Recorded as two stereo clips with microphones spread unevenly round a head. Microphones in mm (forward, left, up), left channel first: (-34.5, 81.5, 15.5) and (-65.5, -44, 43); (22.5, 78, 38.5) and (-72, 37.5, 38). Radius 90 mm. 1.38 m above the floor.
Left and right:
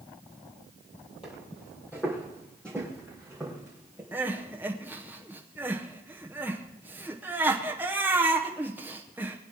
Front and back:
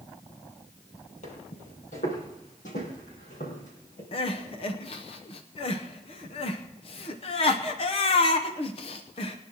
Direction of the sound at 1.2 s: 5° left.